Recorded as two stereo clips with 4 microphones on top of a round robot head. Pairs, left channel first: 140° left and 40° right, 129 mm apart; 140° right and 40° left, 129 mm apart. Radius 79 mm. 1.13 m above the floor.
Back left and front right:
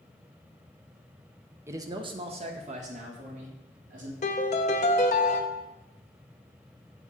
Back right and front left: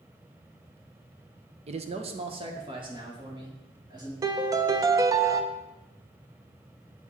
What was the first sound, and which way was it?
A man speaking, 25° left.